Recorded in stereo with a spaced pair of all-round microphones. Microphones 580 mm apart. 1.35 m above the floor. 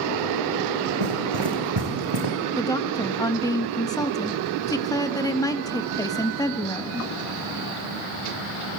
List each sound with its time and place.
1.0 s running footsteps: 50° right (ahead or behind), 4.5 m; by 2.4 s 45° right (ahead or behind), 5 m
2.6 s a woman speaking: 5° left (ahead or behind), 1.5 m